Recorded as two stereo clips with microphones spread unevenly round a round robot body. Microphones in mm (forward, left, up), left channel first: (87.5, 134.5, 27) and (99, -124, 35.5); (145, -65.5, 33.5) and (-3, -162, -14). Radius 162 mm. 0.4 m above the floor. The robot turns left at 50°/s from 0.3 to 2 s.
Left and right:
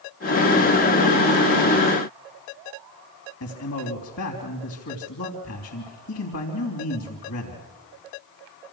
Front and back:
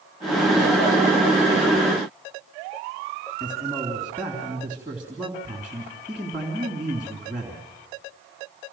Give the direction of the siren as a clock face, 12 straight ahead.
I don't hear a siren.